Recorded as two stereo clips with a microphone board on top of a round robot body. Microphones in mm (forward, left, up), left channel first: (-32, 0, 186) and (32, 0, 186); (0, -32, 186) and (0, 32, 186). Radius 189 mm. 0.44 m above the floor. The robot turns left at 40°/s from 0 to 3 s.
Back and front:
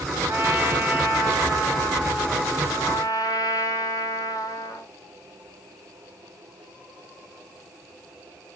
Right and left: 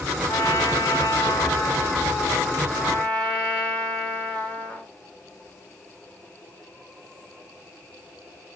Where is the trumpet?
50° right, 2 m; by 4.9 s 160° right, 2 m.